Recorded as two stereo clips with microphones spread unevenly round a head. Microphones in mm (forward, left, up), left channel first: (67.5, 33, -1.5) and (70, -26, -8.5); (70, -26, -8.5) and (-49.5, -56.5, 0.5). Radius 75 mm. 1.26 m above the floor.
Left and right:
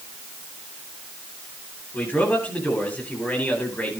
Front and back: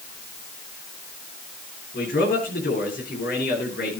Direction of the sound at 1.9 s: 30° left.